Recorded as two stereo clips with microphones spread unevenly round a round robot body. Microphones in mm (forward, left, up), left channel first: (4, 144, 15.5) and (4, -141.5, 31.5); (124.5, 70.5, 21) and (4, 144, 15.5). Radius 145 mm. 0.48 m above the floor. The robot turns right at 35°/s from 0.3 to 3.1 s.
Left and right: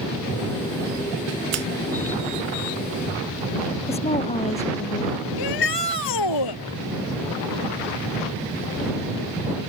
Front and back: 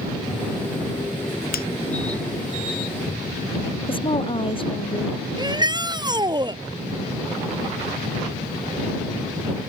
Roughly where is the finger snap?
Ahead right.